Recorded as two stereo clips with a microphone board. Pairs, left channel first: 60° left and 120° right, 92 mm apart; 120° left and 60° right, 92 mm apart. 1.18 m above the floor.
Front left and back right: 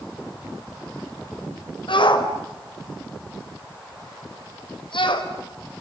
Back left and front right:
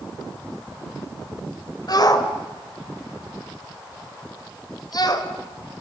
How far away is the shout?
About 4 m.